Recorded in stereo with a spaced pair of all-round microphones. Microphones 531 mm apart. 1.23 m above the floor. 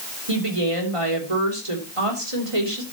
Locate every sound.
0.3 s a woman speaking: 75° right (ahead or behind), 3.5 m